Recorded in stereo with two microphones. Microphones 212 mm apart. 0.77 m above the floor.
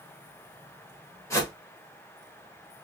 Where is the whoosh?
15° left (ahead or behind), 1.2 m.